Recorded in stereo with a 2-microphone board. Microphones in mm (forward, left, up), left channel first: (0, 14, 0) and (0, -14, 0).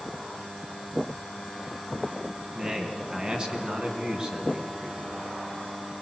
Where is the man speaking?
35° right (ahead or behind), 2.5 m.